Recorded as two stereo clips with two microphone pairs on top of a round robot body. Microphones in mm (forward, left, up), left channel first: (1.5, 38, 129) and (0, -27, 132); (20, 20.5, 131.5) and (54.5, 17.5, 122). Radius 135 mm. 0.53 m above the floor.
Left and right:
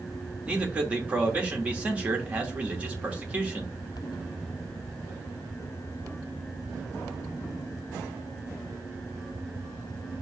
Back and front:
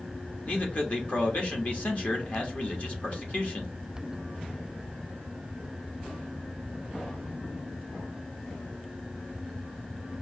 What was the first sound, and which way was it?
A man speaking, 150° right.